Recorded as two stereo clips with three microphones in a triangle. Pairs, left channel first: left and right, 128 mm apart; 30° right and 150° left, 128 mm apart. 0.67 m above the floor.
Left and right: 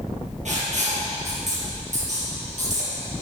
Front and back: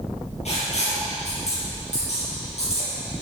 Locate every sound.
0.5 s writing: 65° right, 5.5 m